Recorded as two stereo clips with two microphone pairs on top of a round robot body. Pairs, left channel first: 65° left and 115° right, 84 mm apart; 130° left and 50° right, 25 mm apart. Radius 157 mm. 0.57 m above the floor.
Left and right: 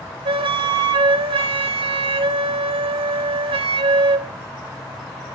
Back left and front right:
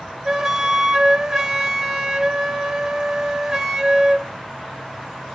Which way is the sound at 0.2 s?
120° right.